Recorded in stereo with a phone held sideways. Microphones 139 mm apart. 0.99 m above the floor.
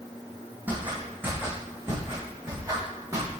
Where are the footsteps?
10° right (ahead or behind), 2 m; by 3.3 s 25° right (ahead or behind), 3.5 m.